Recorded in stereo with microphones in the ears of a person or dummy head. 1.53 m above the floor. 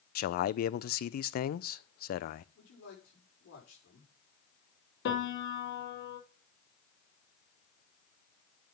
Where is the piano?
65° left (ahead or behind), 3 m.